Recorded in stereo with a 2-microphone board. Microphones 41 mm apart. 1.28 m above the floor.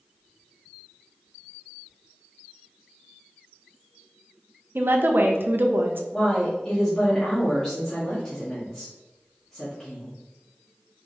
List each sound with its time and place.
4.8 s a woman speaking: 65° right (ahead or behind), 0.7 m
6.1 s a woman speaking: 30° left (ahead or behind), 1.5 m